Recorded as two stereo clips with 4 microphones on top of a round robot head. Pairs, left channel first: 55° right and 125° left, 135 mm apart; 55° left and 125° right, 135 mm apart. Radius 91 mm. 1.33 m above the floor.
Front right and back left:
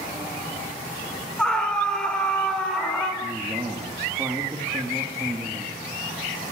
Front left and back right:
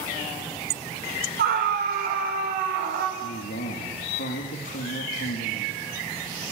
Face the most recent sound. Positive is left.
turn(degrees=50)